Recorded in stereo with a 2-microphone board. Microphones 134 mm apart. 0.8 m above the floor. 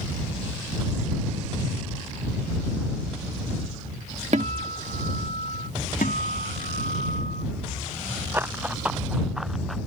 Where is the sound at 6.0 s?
80° left.